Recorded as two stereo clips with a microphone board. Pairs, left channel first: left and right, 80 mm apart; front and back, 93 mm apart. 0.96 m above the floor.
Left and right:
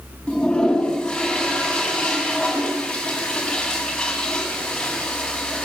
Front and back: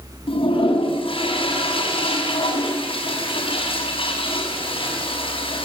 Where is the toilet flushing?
10° left, 7 m.